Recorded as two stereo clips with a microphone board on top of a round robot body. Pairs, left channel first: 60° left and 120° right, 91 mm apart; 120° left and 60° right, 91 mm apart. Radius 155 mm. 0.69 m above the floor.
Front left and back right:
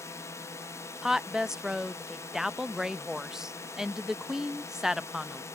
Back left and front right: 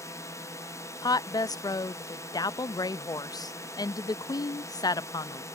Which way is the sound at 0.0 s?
95° left.